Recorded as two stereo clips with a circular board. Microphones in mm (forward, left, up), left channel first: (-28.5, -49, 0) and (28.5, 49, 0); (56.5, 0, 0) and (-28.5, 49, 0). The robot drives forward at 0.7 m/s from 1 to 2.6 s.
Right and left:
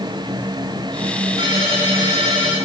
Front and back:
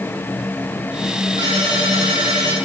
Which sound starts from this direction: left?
A ringtone, at 1.4 s.